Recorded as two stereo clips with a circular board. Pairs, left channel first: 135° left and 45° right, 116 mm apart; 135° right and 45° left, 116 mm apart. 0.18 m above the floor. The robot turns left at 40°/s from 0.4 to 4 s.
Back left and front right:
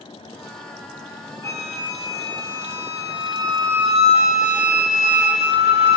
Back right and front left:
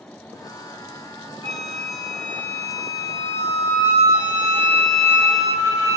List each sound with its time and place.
1.4 s a flute: 100° right, 2 m; by 6.0 s 160° left, 2 m